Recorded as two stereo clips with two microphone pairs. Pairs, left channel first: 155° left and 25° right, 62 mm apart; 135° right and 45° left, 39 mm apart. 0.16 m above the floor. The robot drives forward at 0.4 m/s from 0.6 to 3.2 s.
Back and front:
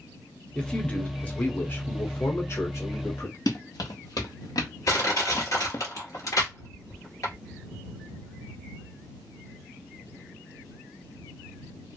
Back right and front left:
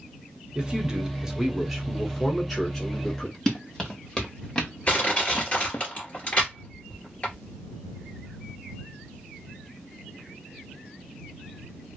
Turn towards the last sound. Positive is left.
turn(degrees=170)